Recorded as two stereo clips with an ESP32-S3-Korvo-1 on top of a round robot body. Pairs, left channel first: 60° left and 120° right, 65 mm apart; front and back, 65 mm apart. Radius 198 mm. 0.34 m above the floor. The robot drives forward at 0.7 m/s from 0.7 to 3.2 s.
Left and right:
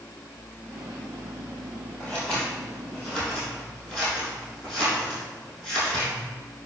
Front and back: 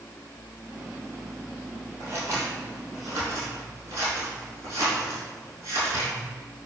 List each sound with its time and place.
2.0 s scissors: 140° left, 3 m; by 6.1 s 150° left, 4 m